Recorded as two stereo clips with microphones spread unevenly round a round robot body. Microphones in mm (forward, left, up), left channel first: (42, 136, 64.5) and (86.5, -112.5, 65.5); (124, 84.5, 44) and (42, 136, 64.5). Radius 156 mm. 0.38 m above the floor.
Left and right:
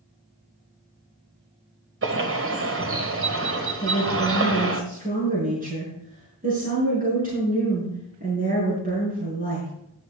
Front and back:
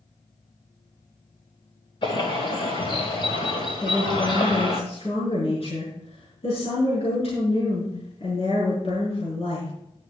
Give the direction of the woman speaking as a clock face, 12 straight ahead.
1 o'clock.